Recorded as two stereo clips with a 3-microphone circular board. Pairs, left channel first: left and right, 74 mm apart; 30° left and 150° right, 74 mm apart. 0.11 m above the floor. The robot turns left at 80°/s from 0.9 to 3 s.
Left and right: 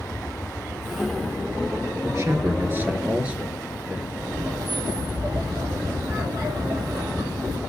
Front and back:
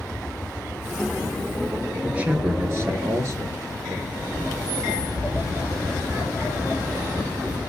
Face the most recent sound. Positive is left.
turn(degrees=-90)